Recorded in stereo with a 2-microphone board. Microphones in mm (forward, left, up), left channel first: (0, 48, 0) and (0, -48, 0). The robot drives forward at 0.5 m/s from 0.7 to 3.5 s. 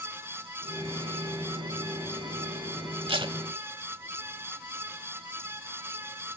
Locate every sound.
3.1 s tape being pulled: 65° right (ahead or behind), 0.7 m; by 3.4 s 55° right (ahead or behind), 0.8 m